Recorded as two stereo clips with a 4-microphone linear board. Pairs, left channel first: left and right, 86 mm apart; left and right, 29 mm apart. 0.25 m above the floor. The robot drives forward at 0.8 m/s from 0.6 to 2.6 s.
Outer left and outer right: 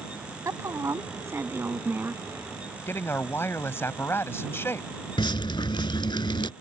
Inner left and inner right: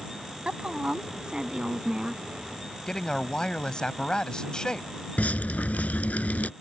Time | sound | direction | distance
0.5 | a woman speaking | 40° right (ahead or behind) | ?
2.9 | a man speaking | 30° left (ahead or behind) | ?
5.2 | dripping | 70° left (ahead or behind) | ?